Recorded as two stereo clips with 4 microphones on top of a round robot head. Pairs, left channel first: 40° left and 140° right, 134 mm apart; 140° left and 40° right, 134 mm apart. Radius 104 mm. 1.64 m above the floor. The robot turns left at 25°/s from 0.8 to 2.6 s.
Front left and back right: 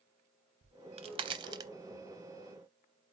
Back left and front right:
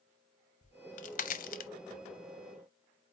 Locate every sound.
0.6 s a crack: 175° left, 0.7 m; by 1.7 s 155° left, 0.7 m